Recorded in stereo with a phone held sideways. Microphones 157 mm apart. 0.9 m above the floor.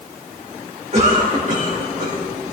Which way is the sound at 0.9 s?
50° right (ahead or behind).